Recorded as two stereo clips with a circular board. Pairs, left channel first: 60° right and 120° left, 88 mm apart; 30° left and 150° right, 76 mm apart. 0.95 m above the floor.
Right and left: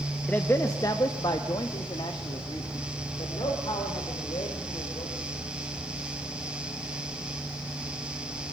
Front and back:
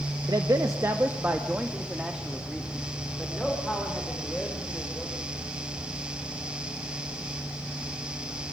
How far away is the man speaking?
About 1.1 m.